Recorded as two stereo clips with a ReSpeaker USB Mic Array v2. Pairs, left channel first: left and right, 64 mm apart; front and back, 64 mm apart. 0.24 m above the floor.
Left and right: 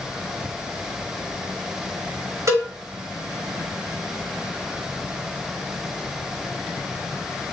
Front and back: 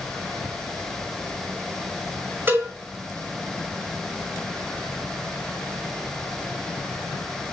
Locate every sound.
2.5 s a cowbell: 125° right, 5.5 m